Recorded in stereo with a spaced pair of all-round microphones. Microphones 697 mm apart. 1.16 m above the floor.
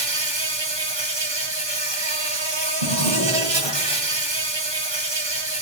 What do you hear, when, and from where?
0.0 s an insect: 40° right (ahead or behind), 1.2 m
2.8 s a drawer: 55° right (ahead or behind), 2 m